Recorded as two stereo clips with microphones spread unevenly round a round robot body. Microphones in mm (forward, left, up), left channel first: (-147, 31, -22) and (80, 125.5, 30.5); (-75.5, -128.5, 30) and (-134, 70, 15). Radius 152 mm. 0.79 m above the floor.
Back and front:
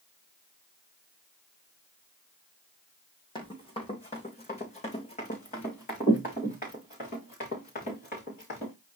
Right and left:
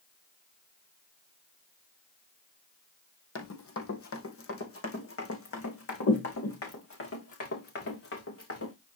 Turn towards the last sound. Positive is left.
turn(degrees=-90)